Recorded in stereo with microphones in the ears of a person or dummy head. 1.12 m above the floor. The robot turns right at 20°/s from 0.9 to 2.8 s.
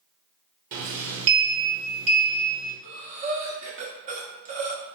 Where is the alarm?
I don't hear an alarm.